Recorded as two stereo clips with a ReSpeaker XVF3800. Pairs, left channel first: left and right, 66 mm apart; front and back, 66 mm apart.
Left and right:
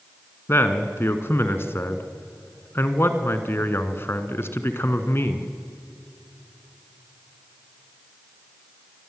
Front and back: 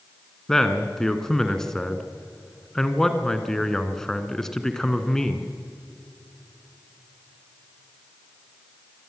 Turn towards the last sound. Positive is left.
turn(degrees=75)